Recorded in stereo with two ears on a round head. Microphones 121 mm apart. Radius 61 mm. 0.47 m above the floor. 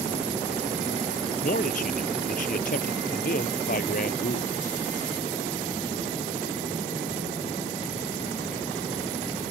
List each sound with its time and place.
1.4 s a man speaking: 60° left (ahead or behind)